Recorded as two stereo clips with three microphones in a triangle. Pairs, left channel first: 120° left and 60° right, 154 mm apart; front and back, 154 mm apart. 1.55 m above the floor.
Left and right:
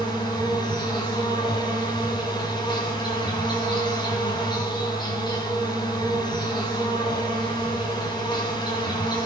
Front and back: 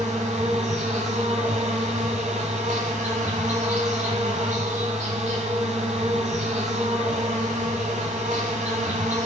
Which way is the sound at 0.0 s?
170° left.